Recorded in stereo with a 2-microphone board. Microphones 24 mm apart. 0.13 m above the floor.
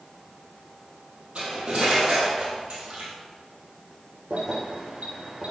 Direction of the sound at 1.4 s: 60° right (ahead or behind).